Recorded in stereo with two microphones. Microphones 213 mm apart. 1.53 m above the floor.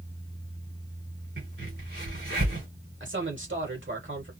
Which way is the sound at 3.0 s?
65° right (ahead or behind).